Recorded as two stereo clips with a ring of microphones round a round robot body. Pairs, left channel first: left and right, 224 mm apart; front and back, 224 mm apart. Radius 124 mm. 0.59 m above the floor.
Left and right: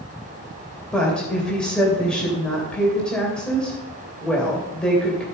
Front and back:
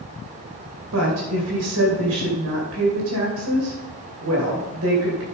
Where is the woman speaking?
175° left, 2.5 m.